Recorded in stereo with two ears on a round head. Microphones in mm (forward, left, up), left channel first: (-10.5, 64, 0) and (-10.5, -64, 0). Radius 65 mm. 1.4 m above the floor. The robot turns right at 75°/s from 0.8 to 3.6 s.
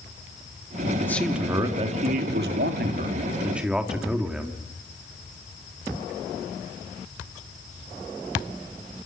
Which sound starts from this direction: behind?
A man speaking, at 1.0 s.